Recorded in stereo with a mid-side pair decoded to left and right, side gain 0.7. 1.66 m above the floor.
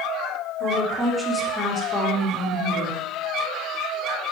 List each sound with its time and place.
0.6 s a woman speaking: 25° right, 0.9 m; by 3.0 s 70° left, 1.0 m